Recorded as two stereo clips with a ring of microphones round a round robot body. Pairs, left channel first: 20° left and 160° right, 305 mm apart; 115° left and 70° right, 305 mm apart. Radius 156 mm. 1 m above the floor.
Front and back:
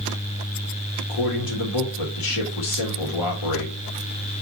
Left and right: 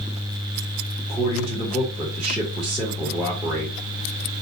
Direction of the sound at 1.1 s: 20° left.